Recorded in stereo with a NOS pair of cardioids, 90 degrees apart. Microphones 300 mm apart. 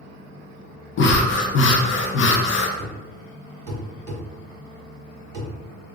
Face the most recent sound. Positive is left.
turn(degrees=-55)